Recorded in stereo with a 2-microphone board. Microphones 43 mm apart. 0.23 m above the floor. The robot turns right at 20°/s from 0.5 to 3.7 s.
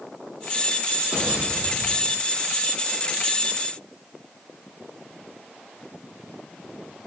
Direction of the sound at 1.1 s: 30° right (ahead or behind).